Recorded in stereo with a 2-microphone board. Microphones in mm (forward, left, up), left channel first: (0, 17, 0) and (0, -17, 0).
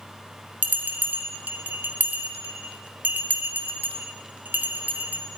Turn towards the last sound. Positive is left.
turn(degrees=-70)  # may be behind; listen again after turning